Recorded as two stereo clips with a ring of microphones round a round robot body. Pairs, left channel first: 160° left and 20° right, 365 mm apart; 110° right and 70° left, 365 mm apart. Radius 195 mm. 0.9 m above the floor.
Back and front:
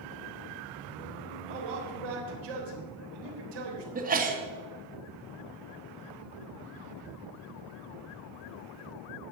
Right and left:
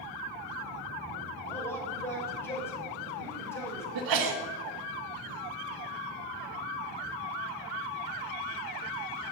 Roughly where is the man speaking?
Ahead right.